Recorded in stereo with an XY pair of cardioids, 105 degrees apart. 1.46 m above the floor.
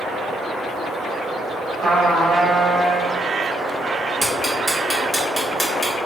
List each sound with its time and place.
1.8 s a trumpet: 50° right, 1.4 m
4.2 s ticking: 5° right, 1.3 m